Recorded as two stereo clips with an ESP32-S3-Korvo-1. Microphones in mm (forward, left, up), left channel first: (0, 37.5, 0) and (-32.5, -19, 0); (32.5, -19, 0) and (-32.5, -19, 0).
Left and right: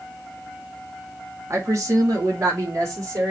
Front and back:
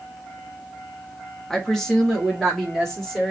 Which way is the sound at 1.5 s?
80° right.